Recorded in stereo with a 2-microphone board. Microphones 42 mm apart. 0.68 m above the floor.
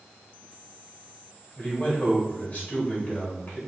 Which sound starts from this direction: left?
A man speaking, at 1.6 s.